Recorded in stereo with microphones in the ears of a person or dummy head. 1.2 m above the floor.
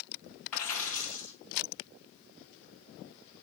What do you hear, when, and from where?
0.5 s a dropped coin: 10° left (ahead or behind), 2 m